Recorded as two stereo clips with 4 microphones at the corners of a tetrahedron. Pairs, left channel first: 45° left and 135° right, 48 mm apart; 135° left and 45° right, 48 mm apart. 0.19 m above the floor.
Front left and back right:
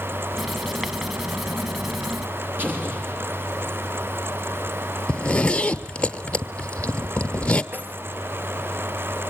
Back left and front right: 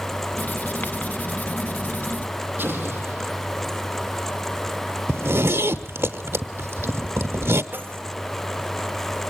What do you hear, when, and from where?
0.4 s writing: 140° left, 1.0 m
2.6 s an explosion: 90° right, 6 m
5.1 s a zipper: 20° right, 1.0 m
7.7 s keys jangling: 85° right, 3 m